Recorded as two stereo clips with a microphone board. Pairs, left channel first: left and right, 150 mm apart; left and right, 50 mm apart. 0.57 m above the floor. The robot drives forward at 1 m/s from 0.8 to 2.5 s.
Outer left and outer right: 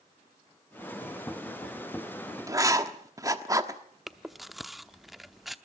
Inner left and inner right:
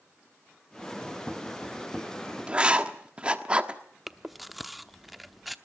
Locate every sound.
2.5 s writing: 20° right (ahead or behind), 1.3 m
4.1 s chewing: centre (ahead or behind), 0.8 m